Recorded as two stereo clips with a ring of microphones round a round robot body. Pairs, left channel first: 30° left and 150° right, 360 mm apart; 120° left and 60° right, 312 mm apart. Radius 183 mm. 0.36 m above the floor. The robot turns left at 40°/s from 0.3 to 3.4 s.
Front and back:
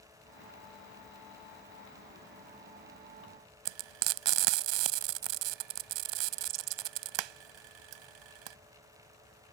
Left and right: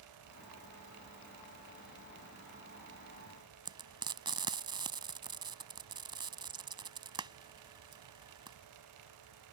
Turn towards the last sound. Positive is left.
turn(degrees=-140)